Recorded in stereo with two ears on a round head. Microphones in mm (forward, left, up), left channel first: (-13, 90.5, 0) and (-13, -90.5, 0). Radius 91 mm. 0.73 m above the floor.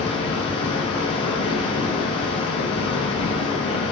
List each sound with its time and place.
0.0 s running water: 30° left (ahead or behind), 1.0 m